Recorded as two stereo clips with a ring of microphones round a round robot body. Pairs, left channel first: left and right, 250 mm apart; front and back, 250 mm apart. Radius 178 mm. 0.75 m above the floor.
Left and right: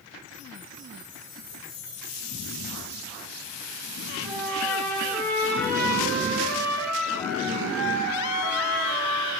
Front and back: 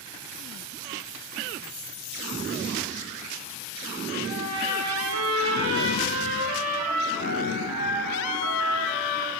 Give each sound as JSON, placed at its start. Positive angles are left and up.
{"t": 4.2, "sound": "a trumpet", "azimuth_deg": 175, "distance_m": 9.5}